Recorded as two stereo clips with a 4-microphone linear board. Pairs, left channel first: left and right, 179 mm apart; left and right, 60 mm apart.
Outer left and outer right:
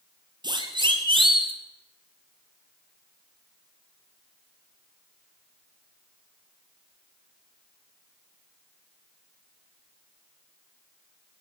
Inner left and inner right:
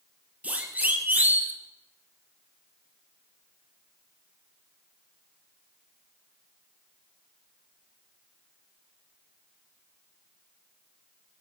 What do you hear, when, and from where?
0.4 s a siren: 25° right (ahead or behind), 4 m; by 1.5 s 30° right (ahead or behind), 3.5 m